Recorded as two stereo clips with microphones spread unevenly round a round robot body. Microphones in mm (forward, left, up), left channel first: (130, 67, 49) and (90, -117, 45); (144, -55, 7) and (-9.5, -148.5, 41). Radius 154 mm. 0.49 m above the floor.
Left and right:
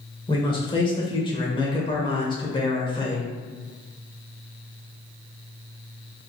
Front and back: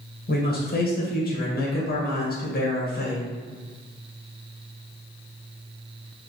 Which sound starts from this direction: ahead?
A man speaking, at 0.3 s.